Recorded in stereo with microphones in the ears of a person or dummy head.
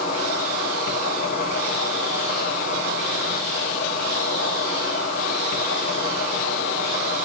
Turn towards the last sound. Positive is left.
turn(degrees=45)  # may be behind; listen again after turning